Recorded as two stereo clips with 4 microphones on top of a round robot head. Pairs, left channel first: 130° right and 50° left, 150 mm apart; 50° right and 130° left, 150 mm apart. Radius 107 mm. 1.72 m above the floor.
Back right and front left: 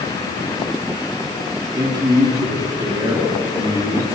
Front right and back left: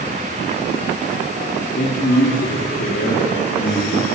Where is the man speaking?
15° right, 5.5 m.